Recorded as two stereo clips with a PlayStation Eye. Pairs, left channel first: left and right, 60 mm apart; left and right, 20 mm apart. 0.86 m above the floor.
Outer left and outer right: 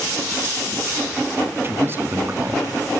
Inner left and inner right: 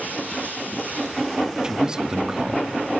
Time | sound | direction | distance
1.6 | a man speaking | 40° right (ahead or behind) | 1.9 m